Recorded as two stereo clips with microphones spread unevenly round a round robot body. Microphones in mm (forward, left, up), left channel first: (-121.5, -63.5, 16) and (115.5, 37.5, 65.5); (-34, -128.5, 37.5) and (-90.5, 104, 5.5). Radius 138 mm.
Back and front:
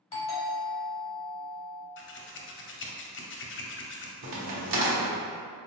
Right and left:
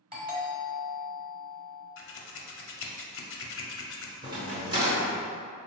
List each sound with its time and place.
0.1 s a doorbell: 155° left, 1.6 m
2.0 s scissors: 115° right, 0.5 m
4.2 s a crack: 30° left, 0.9 m